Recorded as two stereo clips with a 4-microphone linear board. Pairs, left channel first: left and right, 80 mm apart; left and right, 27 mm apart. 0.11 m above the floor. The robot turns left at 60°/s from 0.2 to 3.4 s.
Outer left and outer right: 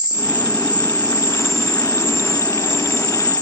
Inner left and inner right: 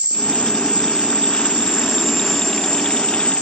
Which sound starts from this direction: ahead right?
An insect, at 0.0 s.